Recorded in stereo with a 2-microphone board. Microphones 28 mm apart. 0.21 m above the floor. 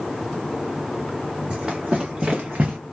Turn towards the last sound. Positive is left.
turn(degrees=-65)  # may be behind; listen again after turning